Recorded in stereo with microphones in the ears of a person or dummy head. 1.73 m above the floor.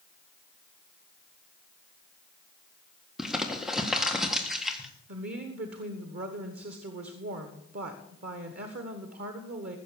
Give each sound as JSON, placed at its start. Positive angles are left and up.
{"t": 3.2, "sound": "crumpling", "side_deg": 0, "distance_m": 1.5}
{"t": 5.1, "sound": "a woman speaking", "side_deg": -60, "distance_m": 1.1}